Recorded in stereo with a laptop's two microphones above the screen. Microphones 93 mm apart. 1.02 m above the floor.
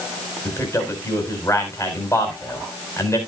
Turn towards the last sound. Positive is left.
turn(degrees=30)  # may be behind; listen again after turning